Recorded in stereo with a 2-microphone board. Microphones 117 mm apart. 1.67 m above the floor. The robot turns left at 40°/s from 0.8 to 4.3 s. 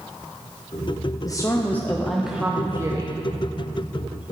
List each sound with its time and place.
1.2 s a woman speaking: 35° left, 0.5 m; by 3.2 s 40° right, 0.5 m